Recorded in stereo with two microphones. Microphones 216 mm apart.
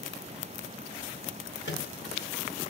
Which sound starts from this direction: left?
A microwave, at 1.6 s.